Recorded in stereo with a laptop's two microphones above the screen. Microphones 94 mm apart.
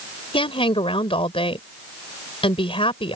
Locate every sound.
0.3 s a woman speaking: 80° left